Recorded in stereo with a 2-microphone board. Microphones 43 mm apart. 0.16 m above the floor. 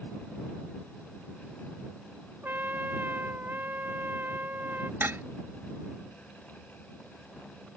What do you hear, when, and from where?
2.4 s a trumpet: 50° right (ahead or behind)
5.0 s dishes clattering: 60° right (ahead or behind)